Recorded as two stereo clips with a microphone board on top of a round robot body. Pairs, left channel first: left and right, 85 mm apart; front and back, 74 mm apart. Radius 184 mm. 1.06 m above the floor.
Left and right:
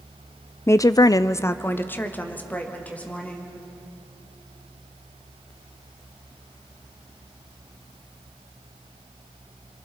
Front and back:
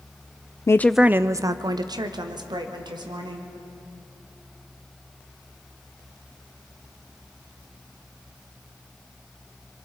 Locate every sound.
0.7 s a woman speaking: 35° left, 0.5 m; by 3.5 s 165° left, 2.5 m